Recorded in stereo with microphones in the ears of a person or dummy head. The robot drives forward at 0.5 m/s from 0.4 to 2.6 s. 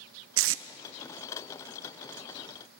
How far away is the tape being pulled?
About 0.8 m.